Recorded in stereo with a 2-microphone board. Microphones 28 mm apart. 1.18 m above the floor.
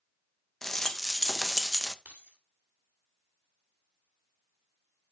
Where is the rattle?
15° left (ahead or behind), 0.6 m.